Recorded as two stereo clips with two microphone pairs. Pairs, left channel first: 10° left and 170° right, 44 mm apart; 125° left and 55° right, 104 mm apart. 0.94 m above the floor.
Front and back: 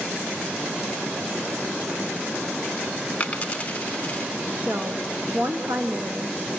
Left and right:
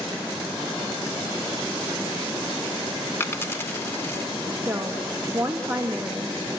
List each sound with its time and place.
3.2 s a dropped coin: 60° left, 0.8 m
4.6 s a woman speaking: 125° right, 1.1 m